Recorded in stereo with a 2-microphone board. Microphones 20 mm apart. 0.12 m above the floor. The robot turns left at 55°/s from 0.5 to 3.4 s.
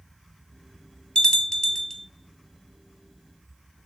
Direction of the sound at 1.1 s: 55° left (ahead or behind).